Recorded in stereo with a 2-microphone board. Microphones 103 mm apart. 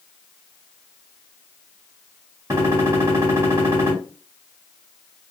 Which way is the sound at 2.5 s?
35° right (ahead or behind).